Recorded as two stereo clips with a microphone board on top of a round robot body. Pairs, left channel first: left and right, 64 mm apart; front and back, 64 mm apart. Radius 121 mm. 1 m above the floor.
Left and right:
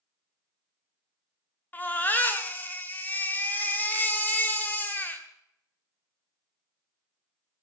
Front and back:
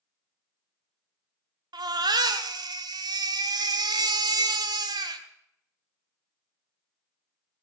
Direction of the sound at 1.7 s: 160° left.